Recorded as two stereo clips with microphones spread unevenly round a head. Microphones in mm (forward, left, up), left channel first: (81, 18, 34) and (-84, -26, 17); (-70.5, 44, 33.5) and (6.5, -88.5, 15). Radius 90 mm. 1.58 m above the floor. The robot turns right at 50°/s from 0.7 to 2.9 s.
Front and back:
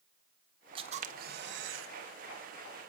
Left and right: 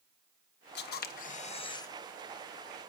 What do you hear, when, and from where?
0.8 s a camera shutter: 130° left, 1.2 m; by 1.9 s 170° right, 1.2 m